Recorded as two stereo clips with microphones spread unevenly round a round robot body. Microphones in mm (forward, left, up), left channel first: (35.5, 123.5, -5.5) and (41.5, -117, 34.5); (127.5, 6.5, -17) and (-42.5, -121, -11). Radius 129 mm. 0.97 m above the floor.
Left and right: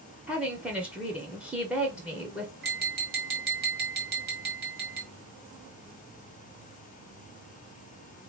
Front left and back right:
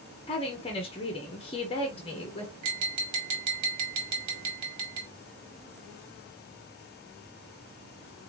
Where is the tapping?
145° right, 1.5 m.